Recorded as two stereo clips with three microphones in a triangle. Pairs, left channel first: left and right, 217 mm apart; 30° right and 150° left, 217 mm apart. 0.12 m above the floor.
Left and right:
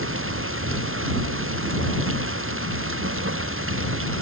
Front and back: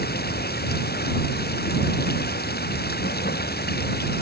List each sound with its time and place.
0.0 s running water: 75° right